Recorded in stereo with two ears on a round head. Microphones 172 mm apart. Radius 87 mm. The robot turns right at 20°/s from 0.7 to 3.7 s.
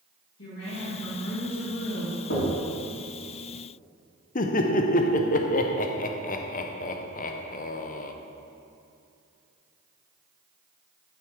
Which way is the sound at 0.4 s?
65° left (ahead or behind).